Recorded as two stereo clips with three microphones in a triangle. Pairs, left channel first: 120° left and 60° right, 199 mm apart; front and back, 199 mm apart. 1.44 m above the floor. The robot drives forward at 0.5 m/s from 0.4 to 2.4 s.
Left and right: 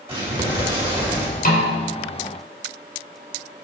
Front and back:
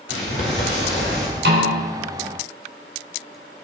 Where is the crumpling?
5° left, 5.5 m.